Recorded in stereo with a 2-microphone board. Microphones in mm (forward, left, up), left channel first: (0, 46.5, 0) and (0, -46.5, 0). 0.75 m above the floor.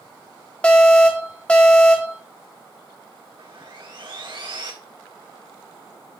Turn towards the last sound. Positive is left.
turn(degrees=-65)  # may be behind; listen again after turning